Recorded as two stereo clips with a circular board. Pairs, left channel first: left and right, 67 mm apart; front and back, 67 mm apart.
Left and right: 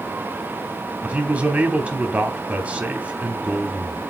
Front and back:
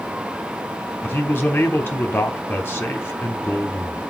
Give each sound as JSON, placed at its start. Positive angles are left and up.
{"t": 1.0, "sound": "a man speaking", "azimuth_deg": -35, "distance_m": 0.9}